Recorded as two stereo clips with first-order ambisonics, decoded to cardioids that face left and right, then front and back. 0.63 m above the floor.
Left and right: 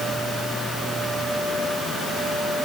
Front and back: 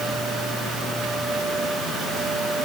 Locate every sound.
Only background noise.